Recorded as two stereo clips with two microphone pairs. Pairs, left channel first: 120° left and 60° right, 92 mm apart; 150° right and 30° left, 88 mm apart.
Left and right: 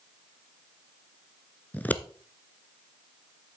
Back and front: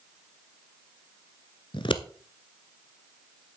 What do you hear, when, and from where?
1.7 s scissors: 170° right, 0.7 m